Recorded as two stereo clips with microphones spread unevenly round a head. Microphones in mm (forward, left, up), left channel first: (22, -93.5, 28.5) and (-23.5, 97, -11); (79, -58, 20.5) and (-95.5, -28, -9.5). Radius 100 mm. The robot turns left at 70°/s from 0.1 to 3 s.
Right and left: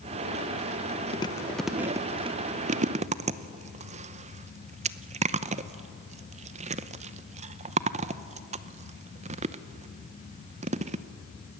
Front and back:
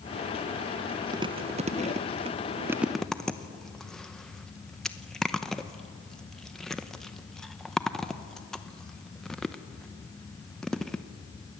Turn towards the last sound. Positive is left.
turn(degrees=85)